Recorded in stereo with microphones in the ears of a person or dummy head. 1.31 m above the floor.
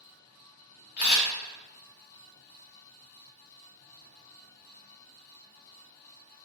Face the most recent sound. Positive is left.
turn(degrees=50)  # may be behind; listen again after turning